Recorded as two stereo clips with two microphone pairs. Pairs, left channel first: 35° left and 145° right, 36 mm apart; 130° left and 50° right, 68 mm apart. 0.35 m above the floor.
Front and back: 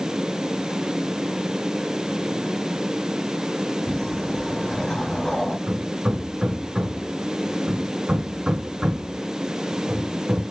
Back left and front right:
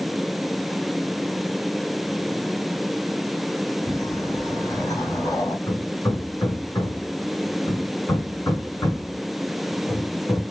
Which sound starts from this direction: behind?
Hammering, at 5.7 s.